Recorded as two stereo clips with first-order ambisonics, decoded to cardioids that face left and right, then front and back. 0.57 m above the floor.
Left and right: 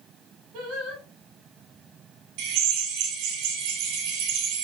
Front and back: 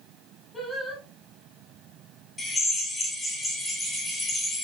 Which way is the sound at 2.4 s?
85° right.